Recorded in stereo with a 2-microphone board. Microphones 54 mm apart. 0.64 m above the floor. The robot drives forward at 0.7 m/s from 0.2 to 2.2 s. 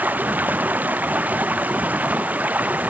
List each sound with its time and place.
0.0 s running water: 30° right (ahead or behind)